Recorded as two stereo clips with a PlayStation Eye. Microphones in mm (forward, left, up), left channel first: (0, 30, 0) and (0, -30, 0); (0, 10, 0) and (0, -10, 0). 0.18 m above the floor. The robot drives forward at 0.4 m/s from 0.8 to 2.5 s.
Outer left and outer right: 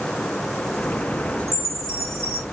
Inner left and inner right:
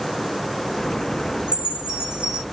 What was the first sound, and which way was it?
A chime, 55° right (ahead or behind).